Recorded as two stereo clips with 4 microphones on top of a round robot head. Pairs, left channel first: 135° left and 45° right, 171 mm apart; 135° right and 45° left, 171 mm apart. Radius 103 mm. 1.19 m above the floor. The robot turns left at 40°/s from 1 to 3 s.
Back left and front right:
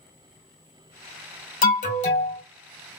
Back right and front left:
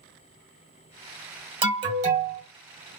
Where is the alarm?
105° left, 2.5 m; by 2.4 s 75° left, 2.5 m.